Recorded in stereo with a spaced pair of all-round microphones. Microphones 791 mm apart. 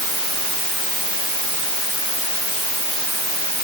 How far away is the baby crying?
I don't hear a baby crying.